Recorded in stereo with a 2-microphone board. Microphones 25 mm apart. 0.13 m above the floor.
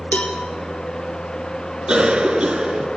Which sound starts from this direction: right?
A cough, at 1.9 s.